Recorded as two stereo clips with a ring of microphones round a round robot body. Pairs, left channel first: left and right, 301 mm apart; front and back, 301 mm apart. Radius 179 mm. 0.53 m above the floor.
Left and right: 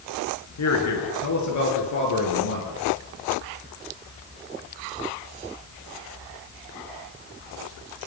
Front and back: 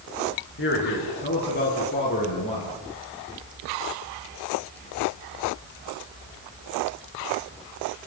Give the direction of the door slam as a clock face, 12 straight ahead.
I don't hear a door slam.